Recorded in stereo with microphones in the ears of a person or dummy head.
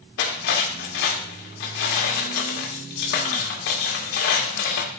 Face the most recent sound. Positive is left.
turn(degrees=60)  # may be behind; listen again after turning